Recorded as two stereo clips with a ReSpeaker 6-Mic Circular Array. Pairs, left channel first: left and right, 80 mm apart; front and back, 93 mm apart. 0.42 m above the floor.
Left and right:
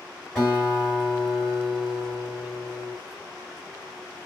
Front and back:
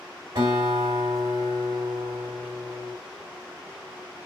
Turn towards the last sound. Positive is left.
turn(degrees=170)